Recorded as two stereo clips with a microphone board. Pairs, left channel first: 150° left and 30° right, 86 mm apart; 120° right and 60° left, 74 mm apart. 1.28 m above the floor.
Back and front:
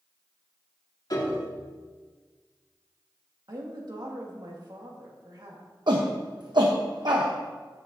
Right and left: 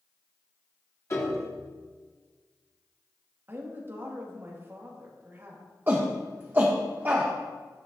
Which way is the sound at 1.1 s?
170° right.